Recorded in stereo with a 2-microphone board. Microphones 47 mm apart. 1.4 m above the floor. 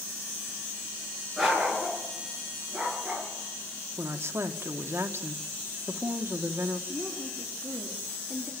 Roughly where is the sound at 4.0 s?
Right.